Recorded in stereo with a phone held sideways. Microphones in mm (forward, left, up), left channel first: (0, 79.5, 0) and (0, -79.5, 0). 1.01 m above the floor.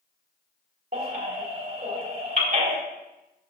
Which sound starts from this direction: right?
A baby crying, at 0.9 s.